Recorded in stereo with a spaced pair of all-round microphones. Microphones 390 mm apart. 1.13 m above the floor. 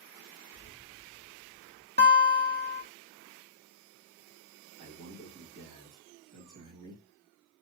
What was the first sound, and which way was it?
Keys jangling, 20° right (ahead or behind).